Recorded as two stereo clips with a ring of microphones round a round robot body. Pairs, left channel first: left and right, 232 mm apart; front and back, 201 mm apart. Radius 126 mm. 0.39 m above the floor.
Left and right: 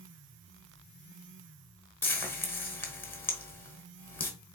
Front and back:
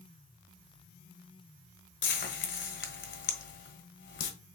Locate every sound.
2.0 s frying: 10° left, 1.2 m